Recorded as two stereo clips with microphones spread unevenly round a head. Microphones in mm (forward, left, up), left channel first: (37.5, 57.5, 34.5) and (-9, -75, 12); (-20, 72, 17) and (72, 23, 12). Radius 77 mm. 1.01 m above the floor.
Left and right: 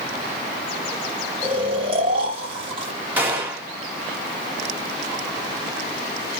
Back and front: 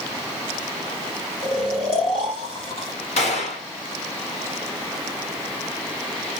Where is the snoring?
155° right, 1.5 m.